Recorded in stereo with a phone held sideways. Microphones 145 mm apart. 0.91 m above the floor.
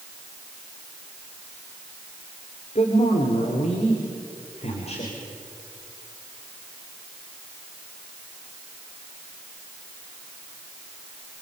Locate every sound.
2.8 s a man speaking: 50° left (ahead or behind), 3 m